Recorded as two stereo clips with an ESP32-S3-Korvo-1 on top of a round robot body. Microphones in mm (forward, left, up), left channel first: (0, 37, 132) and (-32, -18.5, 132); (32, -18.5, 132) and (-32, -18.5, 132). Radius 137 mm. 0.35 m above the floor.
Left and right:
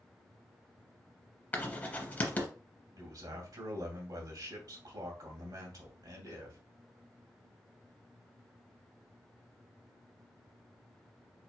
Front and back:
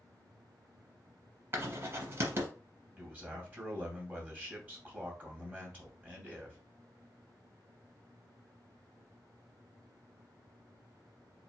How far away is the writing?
About 1.3 m.